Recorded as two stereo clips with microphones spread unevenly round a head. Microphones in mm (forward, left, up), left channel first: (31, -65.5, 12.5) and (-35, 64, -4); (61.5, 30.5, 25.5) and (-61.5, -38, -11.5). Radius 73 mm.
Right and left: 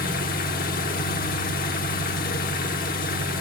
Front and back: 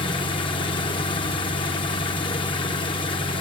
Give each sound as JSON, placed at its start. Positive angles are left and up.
{"t": 0.0, "sound": "an engine running", "azimuth_deg": -30, "distance_m": 1.8}